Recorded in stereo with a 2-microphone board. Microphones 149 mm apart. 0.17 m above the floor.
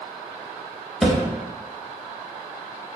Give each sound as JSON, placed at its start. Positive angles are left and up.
{"t": 1.0, "sound": "a thud", "side_deg": 0, "distance_m": 0.8}